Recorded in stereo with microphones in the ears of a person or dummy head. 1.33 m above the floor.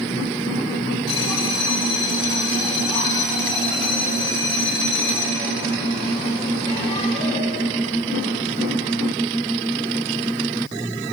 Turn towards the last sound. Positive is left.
turn(degrees=25)  # may be behind; listen again after turning